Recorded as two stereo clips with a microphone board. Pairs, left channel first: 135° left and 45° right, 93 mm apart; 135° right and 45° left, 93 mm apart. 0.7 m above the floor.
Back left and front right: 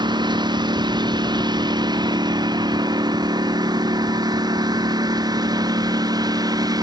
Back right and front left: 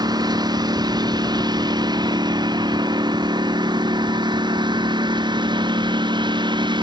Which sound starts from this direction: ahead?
A lawn mower, at 0.0 s.